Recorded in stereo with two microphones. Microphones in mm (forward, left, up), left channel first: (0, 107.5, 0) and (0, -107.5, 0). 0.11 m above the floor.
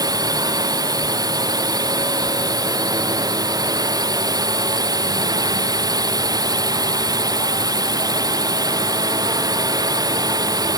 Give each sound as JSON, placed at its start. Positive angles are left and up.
{"t": 0.0, "sound": "a drone", "side_deg": -15}